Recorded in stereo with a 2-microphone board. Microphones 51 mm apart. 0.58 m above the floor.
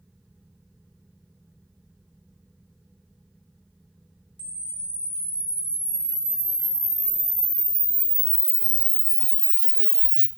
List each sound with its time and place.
4.4 s a camera shutter: 25° left (ahead or behind), 0.6 m